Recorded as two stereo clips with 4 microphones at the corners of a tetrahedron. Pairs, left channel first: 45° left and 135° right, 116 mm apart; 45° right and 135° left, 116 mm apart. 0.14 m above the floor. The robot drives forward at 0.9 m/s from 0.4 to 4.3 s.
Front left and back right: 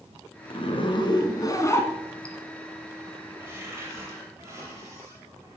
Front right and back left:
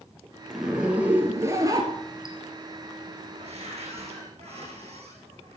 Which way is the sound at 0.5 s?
50° left.